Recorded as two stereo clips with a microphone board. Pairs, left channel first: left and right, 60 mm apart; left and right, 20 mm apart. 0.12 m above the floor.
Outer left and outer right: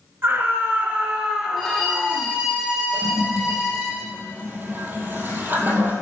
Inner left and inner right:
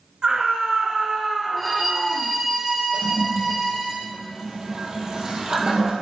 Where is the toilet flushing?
35° right (ahead or behind), 2.0 m.